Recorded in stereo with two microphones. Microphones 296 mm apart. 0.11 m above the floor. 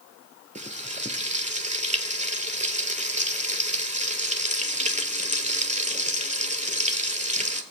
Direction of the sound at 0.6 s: 20° right (ahead or behind).